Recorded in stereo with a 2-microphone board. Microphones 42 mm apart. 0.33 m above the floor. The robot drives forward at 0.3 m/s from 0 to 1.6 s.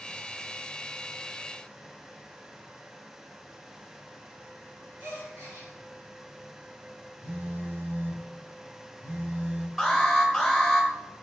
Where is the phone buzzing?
55° right (ahead or behind), 1.2 m.